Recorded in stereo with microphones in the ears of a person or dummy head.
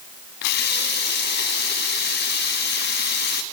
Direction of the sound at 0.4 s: 60° left (ahead or behind).